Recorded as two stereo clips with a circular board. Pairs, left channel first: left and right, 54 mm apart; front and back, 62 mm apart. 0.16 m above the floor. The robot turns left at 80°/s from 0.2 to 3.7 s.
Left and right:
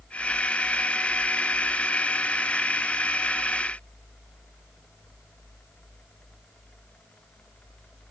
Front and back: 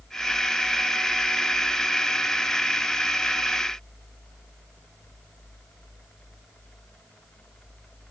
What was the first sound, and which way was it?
Only background noise.